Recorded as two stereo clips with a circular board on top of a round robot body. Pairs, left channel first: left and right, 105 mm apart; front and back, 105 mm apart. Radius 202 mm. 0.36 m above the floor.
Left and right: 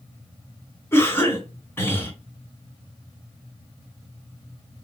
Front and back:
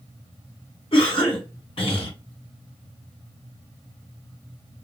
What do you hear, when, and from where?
0.9 s a cough: 25° left, 3 m